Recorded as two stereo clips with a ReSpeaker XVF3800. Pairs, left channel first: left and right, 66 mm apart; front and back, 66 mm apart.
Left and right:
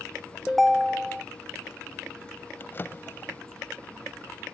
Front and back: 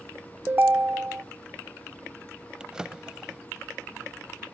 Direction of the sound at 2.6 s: 110° left.